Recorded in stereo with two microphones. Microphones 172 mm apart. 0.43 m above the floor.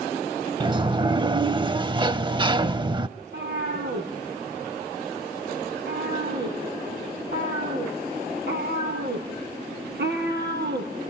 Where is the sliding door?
30° right (ahead or behind), 0.5 m.